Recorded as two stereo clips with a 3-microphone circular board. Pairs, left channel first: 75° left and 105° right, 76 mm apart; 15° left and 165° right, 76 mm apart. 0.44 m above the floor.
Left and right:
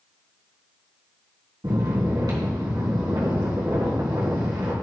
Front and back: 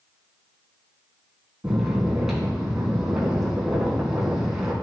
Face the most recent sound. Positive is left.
turn(degrees=-80)